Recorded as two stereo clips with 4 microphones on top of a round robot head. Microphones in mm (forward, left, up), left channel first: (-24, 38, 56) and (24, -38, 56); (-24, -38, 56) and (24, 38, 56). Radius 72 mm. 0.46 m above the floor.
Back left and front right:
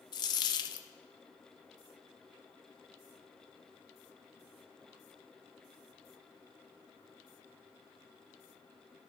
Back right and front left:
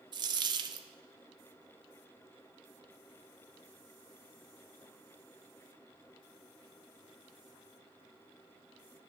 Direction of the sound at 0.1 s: 90° left.